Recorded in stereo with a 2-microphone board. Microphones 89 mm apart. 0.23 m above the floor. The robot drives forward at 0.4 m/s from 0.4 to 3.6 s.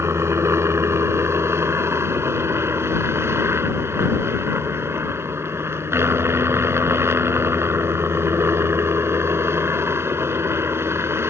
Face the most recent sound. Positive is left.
turn(degrees=-30)  # may be behind; listen again after turning